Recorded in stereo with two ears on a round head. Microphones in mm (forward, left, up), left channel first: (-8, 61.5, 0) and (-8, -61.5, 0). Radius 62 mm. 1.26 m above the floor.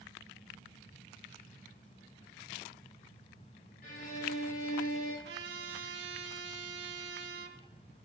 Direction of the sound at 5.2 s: 80° right.